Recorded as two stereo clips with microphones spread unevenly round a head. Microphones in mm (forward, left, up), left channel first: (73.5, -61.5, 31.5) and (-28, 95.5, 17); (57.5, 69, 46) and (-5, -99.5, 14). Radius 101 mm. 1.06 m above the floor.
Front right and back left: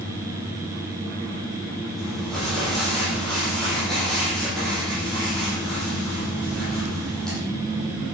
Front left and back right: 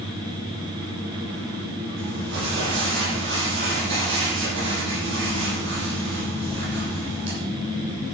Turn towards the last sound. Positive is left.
turn(degrees=-145)